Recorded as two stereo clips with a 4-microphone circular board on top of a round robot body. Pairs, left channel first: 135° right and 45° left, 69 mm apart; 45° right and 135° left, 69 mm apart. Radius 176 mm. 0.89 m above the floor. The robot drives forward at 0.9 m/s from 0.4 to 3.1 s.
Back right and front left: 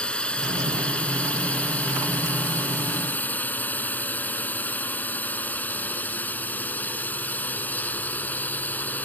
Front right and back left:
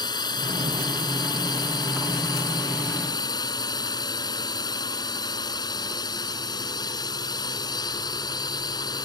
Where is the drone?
60° right; by 9.1 s 70° right.